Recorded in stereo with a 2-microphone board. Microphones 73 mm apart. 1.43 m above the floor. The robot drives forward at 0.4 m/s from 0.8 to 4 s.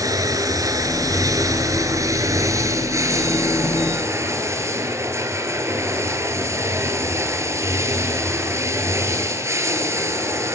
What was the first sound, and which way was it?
Running water, 55° right (ahead or behind).